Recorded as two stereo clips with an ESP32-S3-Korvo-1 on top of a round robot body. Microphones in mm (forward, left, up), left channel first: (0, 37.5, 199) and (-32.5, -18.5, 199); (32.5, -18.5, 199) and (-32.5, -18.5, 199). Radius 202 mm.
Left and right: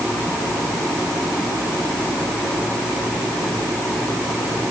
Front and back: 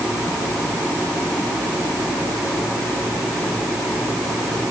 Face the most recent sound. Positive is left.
No sound to turn to.